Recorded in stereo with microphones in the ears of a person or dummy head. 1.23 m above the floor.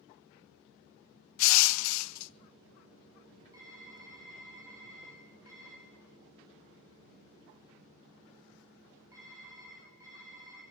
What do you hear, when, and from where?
1.4 s crushing: 80° left, 0.6 m
3.5 s typing on a keyboard: 25° right (ahead or behind), 6 m